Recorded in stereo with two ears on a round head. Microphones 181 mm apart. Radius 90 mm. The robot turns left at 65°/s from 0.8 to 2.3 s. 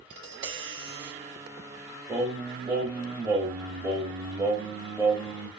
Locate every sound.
0.1 s tapping: 60° right (ahead or behind), 0.9 m; by 1.1 s 40° right (ahead or behind), 0.9 m
2.1 s singing: 5° right (ahead or behind), 0.9 m; by 5.5 s 10° right (ahead or behind), 0.9 m